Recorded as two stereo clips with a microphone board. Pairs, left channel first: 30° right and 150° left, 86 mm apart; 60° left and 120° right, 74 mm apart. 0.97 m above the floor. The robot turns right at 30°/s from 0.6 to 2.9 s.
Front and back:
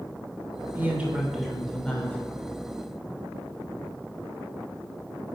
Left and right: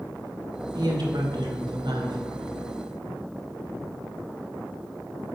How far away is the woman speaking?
About 2.5 m.